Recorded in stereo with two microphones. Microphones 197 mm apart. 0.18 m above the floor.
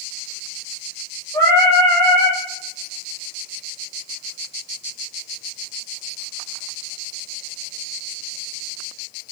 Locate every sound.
1.3 s singing: 20° left (ahead or behind), 4.5 m